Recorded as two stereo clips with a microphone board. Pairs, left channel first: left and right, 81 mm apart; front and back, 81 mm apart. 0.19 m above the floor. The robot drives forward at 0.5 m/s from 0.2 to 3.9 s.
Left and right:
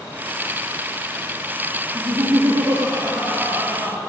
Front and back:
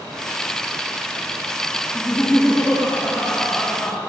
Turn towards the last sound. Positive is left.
turn(degrees=-95)